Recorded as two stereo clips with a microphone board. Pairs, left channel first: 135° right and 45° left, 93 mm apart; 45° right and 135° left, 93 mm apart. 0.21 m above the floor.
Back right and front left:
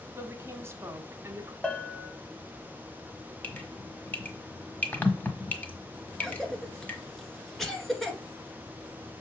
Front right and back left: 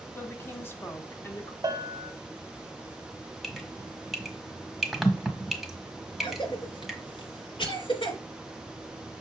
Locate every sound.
0.1 s a woman speaking: 5° left, 1.5 m
1.6 s a bell: 150° left, 0.9 m
3.4 s dripping: 140° right, 1.4 m
6.2 s a cough: 50° right, 2.5 m